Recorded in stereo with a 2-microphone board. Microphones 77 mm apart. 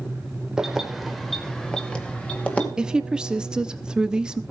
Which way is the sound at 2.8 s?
10° right (ahead or behind).